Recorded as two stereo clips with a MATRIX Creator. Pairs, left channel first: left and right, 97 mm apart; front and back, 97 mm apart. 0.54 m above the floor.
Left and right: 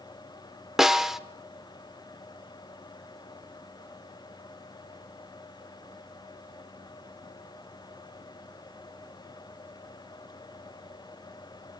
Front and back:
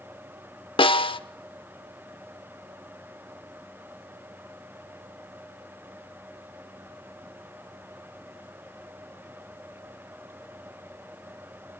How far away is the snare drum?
About 0.8 m.